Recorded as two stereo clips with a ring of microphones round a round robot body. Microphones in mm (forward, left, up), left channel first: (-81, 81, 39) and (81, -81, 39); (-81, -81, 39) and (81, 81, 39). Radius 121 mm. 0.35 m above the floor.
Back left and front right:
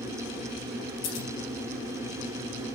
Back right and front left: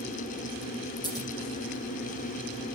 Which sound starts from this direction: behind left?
Scissors, at 1.0 s.